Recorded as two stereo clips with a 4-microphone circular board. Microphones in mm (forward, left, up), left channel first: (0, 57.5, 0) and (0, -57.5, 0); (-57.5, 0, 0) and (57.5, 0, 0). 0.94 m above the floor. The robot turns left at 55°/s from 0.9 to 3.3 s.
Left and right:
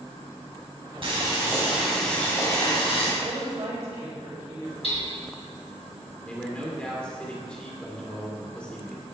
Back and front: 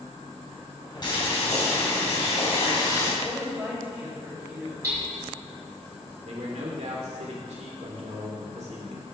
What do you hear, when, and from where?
1.0 s boiling: 130° right, 3.5 m; by 3.1 s 115° left, 3.5 m
3.2 s a woman speaking: 70° right, 4 m; by 4.7 s 75° right, 4 m
4.8 s hammering: 65° left, 3.5 m
6.2 s a man speaking: 10° left, 2 m